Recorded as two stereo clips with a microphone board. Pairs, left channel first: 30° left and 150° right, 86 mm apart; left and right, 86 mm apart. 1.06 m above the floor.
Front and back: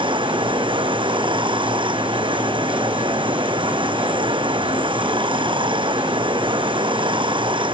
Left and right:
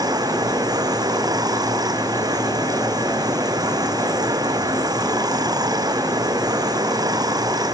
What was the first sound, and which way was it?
Running water, 135° right.